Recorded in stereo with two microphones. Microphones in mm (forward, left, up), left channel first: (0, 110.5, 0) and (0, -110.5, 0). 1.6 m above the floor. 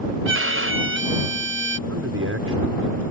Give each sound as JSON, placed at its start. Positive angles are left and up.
{"t": 0.2, "sound": "a violin", "side_deg": -65}
{"t": 1.9, "sound": "a man speaking", "side_deg": -85}